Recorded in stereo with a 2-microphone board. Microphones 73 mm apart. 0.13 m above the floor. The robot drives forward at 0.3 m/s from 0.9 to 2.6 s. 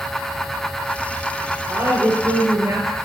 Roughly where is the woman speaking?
Right.